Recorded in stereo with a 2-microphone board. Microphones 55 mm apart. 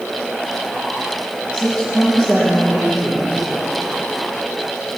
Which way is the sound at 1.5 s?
20° left (ahead or behind).